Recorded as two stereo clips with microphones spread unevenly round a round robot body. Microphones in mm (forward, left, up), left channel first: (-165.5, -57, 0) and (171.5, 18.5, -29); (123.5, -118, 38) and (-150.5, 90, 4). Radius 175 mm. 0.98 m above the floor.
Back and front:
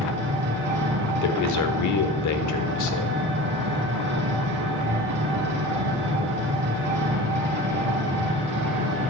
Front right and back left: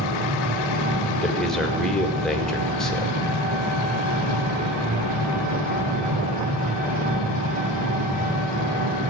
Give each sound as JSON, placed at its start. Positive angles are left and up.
{"t": 0.0, "sound": "an engine running", "azimuth_deg": 75, "distance_m": 2.5}
{"t": 1.2, "sound": "a man speaking", "azimuth_deg": -130, "distance_m": 1.3}